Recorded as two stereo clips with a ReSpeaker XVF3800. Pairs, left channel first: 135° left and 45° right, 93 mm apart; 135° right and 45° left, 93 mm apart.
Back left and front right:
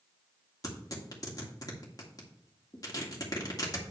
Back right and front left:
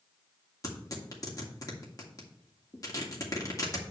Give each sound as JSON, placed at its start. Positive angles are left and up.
{"t": 0.6, "sound": "tearing paper", "azimuth_deg": 180, "distance_m": 2.0}